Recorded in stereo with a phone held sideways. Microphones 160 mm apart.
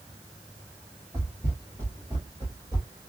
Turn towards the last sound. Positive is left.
turn(degrees=-20)  # may be behind; listen again after turning